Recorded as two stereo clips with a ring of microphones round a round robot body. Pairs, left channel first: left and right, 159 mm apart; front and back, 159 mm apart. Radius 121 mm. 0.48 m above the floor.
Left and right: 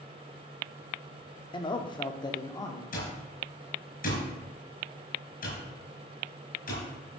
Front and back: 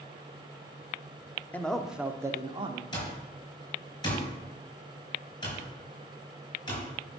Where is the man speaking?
70° left, 0.9 m; by 2.8 s 145° left, 1.1 m.